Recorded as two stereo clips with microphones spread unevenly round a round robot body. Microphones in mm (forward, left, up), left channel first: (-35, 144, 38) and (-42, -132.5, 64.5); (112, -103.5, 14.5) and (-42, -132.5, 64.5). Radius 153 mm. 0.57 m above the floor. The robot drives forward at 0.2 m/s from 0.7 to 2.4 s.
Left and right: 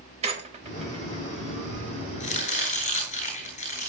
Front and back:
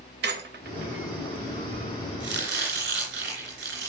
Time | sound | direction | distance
0.2 | a squeak | 160° right | 2 m
2.2 | chopping | 155° left | 9 m